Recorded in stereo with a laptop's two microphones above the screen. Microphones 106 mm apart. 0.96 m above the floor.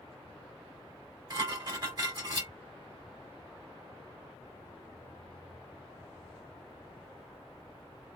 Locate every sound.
1.3 s dishes clattering: 40° right (ahead or behind), 2 m